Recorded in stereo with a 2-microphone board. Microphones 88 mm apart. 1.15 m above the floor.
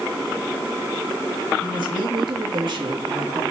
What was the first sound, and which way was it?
A woman speaking, 65° right (ahead or behind).